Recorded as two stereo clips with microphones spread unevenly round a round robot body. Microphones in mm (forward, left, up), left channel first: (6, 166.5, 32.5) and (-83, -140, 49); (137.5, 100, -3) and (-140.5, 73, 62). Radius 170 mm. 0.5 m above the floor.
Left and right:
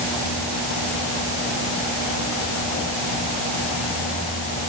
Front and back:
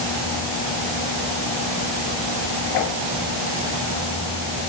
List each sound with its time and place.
Only background noise.